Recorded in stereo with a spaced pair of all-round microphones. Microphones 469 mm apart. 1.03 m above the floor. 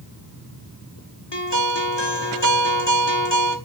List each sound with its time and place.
1.3 s a guitar: 60° left (ahead or behind), 1.9 m